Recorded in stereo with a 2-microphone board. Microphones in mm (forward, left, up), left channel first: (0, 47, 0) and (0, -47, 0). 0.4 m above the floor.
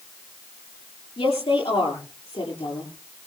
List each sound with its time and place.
1.2 s a woman speaking: 80° left, 8 m